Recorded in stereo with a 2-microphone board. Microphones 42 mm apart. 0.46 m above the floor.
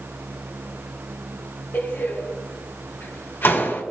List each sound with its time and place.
1.7 s a door slam: 60° left (ahead or behind), 3 m